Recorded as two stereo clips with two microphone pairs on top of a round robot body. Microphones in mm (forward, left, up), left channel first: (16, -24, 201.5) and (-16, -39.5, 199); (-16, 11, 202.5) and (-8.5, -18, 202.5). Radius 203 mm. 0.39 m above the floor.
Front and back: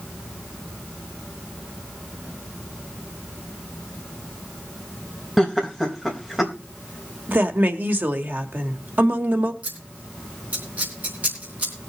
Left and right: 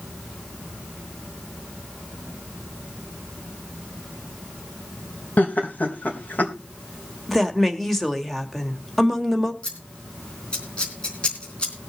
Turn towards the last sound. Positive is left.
turn(degrees=160)